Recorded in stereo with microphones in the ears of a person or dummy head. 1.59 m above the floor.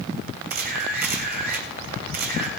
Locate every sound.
0.5 s a camera shutter: 45° right (ahead or behind), 3 m